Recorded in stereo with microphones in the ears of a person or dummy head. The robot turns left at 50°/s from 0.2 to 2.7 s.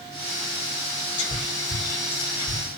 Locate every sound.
1.2 s whispering: 35° left (ahead or behind), 6.5 m; by 2.6 s 70° left (ahead or behind), 6.5 m